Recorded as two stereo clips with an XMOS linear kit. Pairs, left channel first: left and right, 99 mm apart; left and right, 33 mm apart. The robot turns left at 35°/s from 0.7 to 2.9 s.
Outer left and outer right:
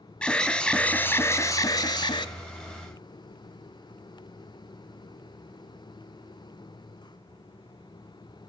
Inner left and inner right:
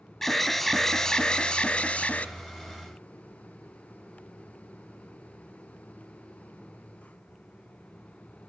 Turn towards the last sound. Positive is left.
turn(degrees=90)